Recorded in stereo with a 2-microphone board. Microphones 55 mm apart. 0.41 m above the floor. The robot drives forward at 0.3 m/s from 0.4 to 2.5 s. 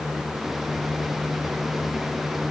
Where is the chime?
No chime in this recording.